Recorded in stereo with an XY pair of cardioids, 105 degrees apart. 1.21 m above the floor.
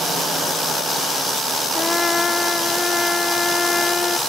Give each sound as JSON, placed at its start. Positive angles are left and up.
{"t": 1.8, "sound": "a trumpet", "azimuth_deg": 25}